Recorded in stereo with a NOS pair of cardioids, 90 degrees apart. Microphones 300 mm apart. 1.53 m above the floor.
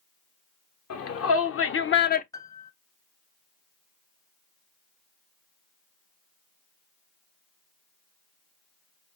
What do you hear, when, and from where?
0.9 s a shout: 55° left, 1.7 m; by 2.2 s 25° left, 0.6 m
2.3 s a piano: 10° left, 0.7 m